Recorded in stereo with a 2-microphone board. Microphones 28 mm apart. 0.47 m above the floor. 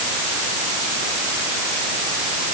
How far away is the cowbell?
I don't hear a cowbell.